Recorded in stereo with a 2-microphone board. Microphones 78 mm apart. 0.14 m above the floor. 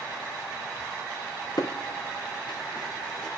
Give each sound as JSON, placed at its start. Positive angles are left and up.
{"t": 1.6, "sound": "footsteps", "side_deg": 60, "distance_m": 1.2}